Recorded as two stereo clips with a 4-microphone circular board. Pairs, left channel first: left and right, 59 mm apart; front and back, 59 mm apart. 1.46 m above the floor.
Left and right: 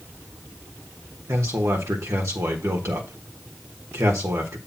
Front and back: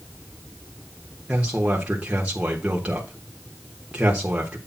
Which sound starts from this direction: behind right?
A man speaking, at 1.3 s.